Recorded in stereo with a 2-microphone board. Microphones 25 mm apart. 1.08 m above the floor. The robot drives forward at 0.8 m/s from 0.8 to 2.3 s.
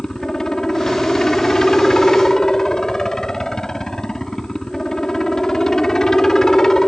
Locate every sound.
0.0 s a helicopter: 20° left (ahead or behind)